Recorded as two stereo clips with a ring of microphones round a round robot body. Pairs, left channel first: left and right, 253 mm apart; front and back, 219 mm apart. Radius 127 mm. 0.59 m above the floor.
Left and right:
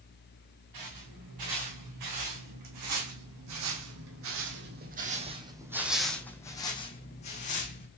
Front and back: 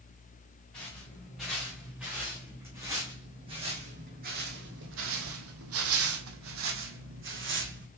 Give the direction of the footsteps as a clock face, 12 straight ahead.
3 o'clock.